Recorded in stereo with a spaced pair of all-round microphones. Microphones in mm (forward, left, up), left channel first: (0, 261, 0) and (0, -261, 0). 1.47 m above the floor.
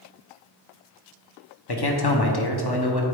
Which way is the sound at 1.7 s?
45° left (ahead or behind).